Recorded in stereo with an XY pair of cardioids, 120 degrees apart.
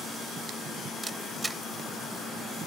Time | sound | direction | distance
1.0 | a camera shutter | 15° right | ?